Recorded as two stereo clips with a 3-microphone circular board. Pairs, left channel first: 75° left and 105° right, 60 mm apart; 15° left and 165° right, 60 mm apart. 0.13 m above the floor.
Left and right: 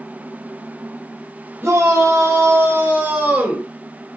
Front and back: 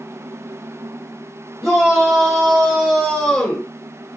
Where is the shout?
85° right, 4 m; by 3.7 s 40° right, 1.7 m.